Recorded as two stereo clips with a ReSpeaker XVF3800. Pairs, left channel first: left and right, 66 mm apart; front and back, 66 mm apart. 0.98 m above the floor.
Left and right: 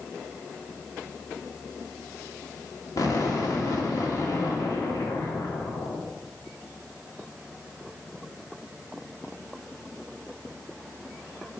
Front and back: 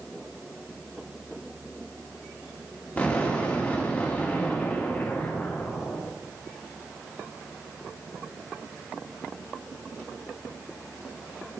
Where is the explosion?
65° left, 2 m.